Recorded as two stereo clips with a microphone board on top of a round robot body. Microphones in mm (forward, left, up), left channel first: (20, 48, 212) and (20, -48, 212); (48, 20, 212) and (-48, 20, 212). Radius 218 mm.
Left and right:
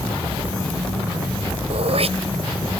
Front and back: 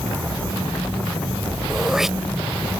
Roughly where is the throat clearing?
Right.